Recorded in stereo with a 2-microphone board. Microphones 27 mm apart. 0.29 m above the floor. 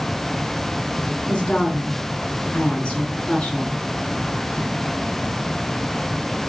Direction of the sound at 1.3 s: 35° left (ahead or behind).